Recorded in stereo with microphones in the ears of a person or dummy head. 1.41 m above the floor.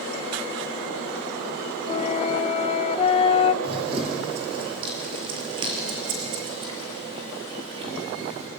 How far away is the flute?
About 0.7 m.